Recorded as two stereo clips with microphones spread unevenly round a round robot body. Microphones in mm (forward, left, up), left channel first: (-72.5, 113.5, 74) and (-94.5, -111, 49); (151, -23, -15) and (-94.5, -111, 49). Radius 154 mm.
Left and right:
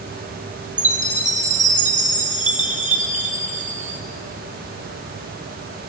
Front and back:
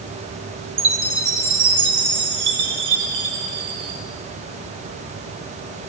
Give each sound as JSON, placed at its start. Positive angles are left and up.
{"t": 0.8, "sound": "a chime", "azimuth_deg": -145, "distance_m": 1.0}